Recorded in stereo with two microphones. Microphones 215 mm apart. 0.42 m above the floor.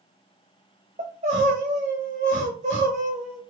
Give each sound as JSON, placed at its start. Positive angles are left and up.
{"t": 1.0, "sound": "crying", "side_deg": -35, "distance_m": 1.2}